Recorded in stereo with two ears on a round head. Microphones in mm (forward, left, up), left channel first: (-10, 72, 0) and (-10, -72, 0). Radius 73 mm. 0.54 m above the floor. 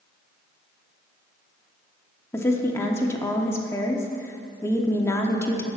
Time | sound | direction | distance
2.3 | a woman speaking | 15° left (ahead or behind) | 0.9 m